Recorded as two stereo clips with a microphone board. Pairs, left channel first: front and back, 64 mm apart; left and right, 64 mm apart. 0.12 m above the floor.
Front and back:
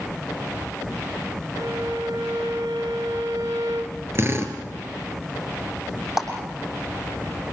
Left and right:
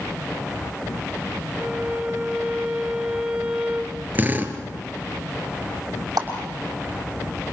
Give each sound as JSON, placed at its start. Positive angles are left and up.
{"t": 1.5, "sound": "a violin", "azimuth_deg": -160, "distance_m": 1.8}
{"t": 4.2, "sound": "a drill", "azimuth_deg": -145, "distance_m": 2.5}
{"t": 6.2, "sound": "a clap", "azimuth_deg": -100, "distance_m": 6.0}